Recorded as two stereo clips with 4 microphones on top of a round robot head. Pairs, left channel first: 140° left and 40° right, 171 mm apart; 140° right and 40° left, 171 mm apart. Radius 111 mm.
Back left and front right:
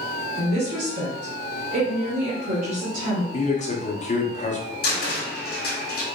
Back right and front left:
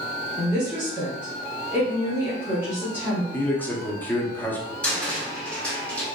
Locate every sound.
0.4 s a woman speaking: 35° right, 1.4 m
3.3 s a man speaking: 145° left, 1.1 m
4.8 s a cupboard door: 140° left, 1.9 m